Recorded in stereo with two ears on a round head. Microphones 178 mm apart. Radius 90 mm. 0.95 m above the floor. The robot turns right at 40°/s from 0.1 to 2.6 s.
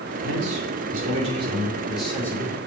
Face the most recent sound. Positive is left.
turn(degrees=25)